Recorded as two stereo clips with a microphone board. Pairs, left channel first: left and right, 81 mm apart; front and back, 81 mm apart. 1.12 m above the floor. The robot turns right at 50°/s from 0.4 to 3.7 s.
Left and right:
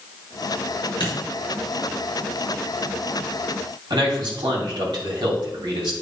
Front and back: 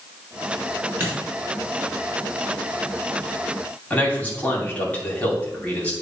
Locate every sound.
1.0 s a dropped coin: 115° left, 4 m; by 1.2 s 120° left, 4 m
3.9 s a man speaking: 70° right, 2.5 m